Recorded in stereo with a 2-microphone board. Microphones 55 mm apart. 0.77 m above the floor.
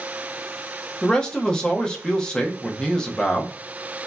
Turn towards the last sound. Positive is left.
turn(degrees=15)  # may be behind; listen again after turning